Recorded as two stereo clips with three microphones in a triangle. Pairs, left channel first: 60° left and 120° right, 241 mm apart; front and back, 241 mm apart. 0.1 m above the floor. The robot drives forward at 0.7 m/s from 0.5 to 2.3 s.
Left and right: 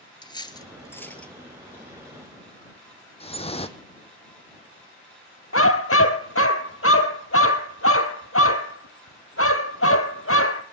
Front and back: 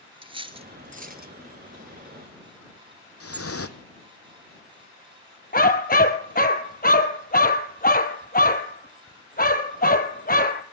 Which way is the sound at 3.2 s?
5° right.